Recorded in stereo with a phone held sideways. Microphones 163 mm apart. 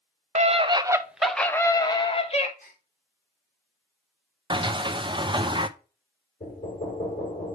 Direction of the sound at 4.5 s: 30° right (ahead or behind).